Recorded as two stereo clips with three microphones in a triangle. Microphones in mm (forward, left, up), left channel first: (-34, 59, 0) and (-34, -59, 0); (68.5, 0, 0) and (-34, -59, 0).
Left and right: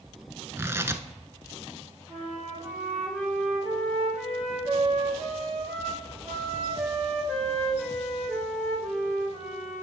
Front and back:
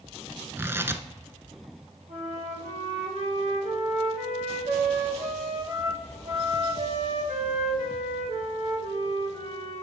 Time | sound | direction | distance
0.6 | tearing paper | 115° right | 0.6 m
2.1 | a flute | 160° right | 4.5 m